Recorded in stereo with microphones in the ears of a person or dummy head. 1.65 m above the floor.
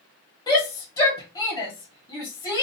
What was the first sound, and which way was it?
A shout, 25° left (ahead or behind).